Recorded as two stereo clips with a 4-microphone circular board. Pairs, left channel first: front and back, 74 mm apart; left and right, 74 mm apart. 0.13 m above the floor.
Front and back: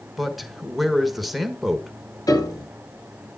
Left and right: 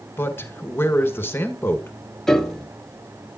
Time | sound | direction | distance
0.2 | a man speaking | 90° left | 1.2 m
2.3 | a piano | 10° left | 1.1 m